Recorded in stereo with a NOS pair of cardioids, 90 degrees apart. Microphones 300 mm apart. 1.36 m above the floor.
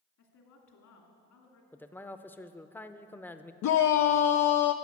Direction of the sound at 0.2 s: 70° left.